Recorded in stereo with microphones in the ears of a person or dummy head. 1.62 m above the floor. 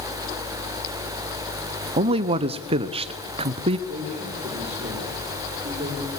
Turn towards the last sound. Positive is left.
turn(degrees=-40)  # may be behind; listen again after turning